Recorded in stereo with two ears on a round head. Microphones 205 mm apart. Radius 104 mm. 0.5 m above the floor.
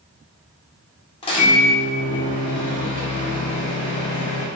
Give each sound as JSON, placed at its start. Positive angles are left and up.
{"t": 1.2, "sound": "a microwave", "side_deg": 25, "distance_m": 0.8}